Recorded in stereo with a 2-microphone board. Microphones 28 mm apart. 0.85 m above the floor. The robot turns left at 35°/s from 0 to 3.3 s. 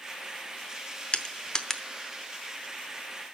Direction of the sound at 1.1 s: 40° left (ahead or behind).